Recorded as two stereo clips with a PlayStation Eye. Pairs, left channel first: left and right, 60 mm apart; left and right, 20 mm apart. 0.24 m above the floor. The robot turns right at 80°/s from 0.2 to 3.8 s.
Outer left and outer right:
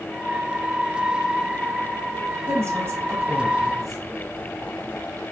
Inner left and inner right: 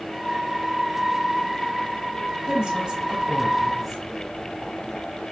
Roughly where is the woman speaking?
Right.